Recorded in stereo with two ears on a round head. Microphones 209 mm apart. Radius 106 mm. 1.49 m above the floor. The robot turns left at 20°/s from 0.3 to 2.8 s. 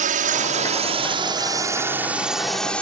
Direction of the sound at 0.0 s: 40° right (ahead or behind).